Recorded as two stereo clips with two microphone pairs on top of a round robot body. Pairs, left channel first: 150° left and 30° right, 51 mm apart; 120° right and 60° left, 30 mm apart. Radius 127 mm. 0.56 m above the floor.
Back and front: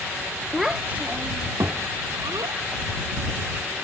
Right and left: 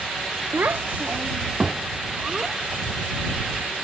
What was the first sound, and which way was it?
A child speaking, 60° left.